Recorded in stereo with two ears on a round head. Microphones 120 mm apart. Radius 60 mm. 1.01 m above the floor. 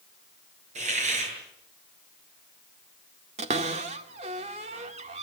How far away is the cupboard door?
About 2 m.